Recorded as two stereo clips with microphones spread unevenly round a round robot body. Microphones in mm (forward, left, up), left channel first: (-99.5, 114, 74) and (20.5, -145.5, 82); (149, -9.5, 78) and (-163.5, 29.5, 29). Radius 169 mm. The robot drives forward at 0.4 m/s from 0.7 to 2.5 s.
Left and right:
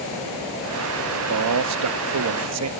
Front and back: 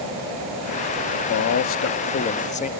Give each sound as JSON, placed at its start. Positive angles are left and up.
{"t": 1.1, "sound": "a man speaking", "azimuth_deg": -45}